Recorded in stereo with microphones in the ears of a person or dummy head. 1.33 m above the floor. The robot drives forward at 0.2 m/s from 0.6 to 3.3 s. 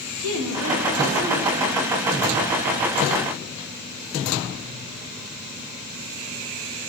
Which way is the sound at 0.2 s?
75° right (ahead or behind).